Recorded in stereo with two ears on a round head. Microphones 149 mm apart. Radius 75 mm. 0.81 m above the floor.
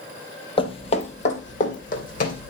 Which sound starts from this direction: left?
Footsteps, at 0.6 s.